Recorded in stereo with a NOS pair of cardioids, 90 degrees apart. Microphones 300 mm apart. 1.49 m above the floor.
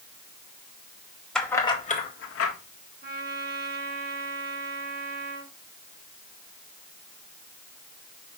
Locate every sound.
1.4 s keys jangling: straight ahead, 2 m; by 2.5 s 55° left, 1.8 m
3.0 s a trumpet: 35° right, 4.5 m